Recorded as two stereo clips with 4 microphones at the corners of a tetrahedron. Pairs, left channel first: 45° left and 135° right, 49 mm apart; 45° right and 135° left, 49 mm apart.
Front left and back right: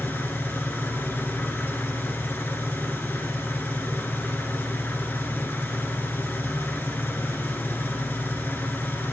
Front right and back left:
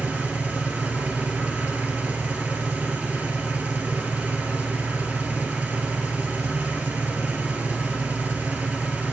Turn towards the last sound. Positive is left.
turn(degrees=85)